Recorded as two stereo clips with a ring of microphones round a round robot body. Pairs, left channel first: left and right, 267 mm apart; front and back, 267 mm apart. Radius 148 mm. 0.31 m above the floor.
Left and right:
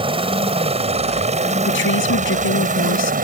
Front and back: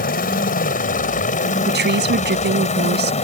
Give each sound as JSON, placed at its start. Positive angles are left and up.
{"t": 0.0, "sound": "a helicopter", "azimuth_deg": -35}
{"t": 1.7, "sound": "a woman speaking", "azimuth_deg": 135}